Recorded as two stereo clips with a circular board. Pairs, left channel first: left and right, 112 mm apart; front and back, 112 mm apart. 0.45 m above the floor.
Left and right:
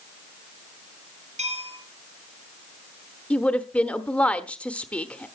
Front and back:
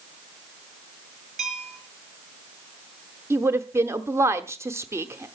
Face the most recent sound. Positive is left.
turn(degrees=155)